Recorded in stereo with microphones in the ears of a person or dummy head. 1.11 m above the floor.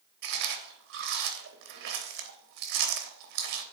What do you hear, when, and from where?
0.2 s chewing: 65° right (ahead or behind), 1.1 m